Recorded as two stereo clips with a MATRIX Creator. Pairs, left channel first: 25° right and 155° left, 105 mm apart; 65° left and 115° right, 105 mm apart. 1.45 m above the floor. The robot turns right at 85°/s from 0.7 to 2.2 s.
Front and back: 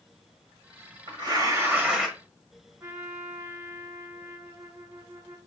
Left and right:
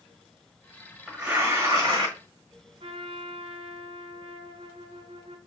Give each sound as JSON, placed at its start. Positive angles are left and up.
{"t": 1.1, "sound": "tearing paper", "azimuth_deg": 160, "distance_m": 1.5}
{"t": 2.8, "sound": "a trumpet", "azimuth_deg": -135, "distance_m": 0.8}